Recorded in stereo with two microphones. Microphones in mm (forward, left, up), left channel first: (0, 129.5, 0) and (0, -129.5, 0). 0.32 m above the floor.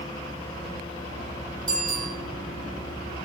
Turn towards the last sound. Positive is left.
turn(degrees=-60)  # may be behind; listen again after turning